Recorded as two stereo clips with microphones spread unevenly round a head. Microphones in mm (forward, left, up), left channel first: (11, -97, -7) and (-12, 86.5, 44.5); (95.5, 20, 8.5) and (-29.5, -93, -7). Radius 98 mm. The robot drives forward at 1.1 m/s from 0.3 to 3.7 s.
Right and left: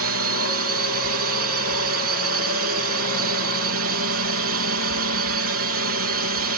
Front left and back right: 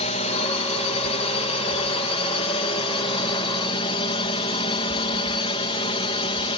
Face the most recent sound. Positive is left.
turn(degrees=105)